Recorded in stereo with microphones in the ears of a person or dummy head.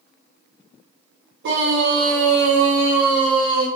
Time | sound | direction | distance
1.4 | a scream | 70° right (ahead or behind) | 1.2 m